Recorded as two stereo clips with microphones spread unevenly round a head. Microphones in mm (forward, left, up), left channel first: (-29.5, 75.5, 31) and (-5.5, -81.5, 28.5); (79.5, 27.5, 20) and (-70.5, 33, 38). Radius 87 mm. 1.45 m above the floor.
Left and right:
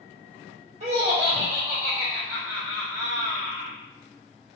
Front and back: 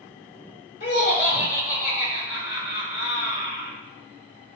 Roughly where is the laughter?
Ahead right.